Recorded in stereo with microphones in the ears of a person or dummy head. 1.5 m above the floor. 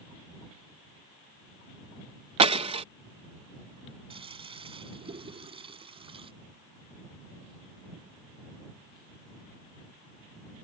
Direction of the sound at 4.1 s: 25° right (ahead or behind).